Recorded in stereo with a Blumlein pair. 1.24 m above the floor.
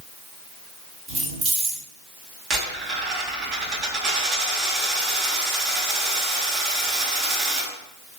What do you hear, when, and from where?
1.1 s keys jangling: 20° right, 2.5 m
2.5 s a dropped coin: 30° right, 1.7 m